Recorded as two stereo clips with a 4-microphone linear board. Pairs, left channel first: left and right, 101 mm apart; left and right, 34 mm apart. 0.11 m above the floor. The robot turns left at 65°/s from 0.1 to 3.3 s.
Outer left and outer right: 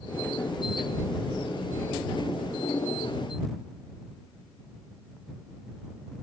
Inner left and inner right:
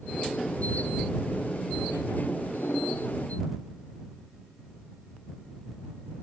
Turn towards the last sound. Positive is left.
No sound to turn to.